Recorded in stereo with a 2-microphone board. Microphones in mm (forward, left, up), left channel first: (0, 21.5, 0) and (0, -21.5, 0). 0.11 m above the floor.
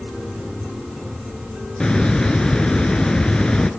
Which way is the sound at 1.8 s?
20° left (ahead or behind).